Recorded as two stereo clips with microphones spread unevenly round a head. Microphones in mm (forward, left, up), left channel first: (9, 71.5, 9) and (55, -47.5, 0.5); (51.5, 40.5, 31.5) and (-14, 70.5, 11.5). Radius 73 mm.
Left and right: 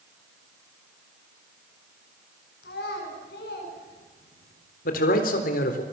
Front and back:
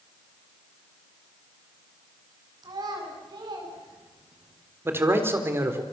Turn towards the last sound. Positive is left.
turn(degrees=100)